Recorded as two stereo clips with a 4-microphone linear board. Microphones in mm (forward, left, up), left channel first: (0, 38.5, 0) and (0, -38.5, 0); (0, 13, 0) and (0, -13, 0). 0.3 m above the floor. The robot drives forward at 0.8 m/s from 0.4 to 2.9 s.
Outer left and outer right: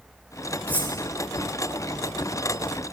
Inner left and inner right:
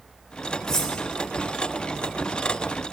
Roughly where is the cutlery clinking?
Left.